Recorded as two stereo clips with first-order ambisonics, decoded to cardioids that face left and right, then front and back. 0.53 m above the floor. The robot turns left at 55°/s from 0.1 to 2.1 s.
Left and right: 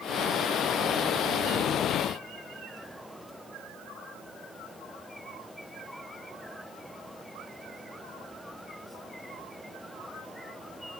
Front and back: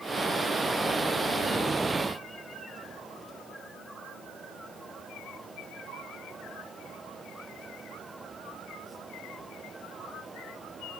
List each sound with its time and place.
Only background noise.